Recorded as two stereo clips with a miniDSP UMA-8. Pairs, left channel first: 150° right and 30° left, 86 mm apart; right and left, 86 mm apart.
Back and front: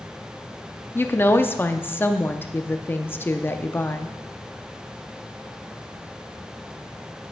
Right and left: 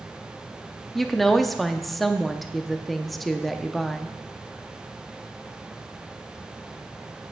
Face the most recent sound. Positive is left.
turn(degrees=-175)